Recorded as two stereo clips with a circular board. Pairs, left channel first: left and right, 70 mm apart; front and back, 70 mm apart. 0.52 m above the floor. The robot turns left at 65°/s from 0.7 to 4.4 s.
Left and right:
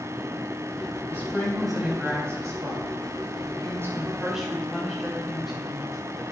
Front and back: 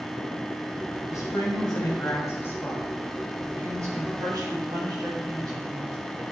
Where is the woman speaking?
35° left, 4 m; by 6.2 s straight behind, 4 m.